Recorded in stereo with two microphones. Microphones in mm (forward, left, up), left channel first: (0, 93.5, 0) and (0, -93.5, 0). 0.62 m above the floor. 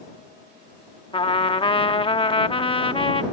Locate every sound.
1.1 s a trumpet: 30° left (ahead or behind)